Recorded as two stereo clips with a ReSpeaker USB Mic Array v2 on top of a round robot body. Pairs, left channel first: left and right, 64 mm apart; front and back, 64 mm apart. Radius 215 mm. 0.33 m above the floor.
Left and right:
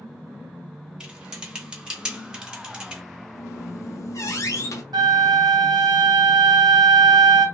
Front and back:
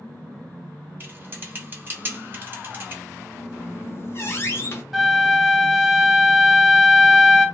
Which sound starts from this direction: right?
A flute, at 4.9 s.